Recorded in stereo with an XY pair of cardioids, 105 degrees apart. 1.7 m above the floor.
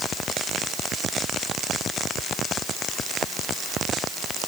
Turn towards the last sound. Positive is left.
No sound to turn to.